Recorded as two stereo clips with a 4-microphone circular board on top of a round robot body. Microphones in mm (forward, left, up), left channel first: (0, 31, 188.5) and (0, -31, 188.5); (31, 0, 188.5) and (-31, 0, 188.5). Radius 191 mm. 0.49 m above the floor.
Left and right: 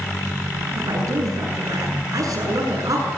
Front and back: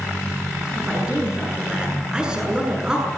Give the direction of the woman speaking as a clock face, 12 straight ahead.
3 o'clock.